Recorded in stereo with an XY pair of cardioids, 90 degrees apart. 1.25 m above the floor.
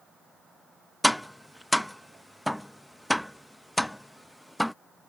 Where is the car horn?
No car horn in this recording.